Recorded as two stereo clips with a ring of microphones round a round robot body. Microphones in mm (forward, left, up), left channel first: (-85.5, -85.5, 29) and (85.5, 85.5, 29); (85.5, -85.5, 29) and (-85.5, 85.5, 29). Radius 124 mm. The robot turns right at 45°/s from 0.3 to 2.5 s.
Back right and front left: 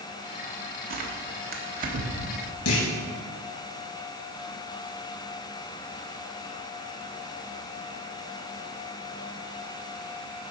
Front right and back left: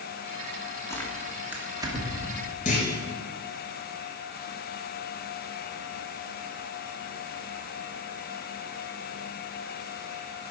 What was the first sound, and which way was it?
Tearing paper, 25° left.